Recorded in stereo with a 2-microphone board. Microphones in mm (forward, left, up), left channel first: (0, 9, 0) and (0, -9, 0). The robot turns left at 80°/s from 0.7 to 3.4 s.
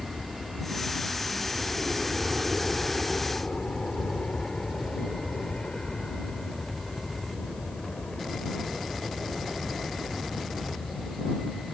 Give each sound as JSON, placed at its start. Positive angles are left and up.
{"t": 0.0, "sound": "an aircraft", "side_deg": -30}